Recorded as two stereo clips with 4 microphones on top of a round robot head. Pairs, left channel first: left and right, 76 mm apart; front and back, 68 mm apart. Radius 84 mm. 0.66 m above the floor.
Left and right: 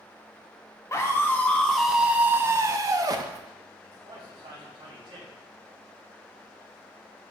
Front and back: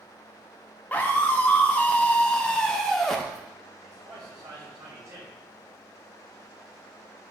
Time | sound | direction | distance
0.9 | a scream | 55° left | 0.8 m
3.8 | a man speaking | 125° right | 3.5 m